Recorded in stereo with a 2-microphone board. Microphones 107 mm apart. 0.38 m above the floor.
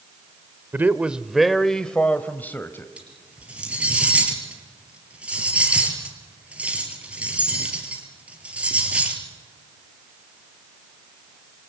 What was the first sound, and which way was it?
A man speaking, 20° right (ahead or behind).